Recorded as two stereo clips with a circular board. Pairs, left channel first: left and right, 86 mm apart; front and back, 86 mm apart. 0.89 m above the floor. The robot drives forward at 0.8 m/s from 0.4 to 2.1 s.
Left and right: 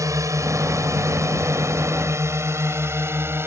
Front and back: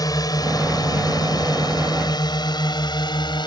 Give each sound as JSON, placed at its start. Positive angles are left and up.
{"t": 0.0, "sound": "a drone", "azimuth_deg": -40}